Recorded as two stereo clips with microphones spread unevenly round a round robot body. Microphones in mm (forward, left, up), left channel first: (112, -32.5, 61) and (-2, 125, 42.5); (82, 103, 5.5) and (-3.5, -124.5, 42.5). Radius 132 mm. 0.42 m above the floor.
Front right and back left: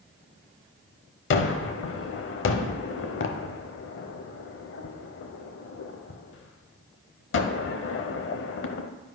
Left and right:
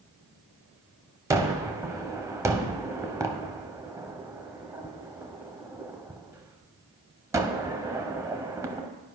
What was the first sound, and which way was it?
A gunshot, 30° right.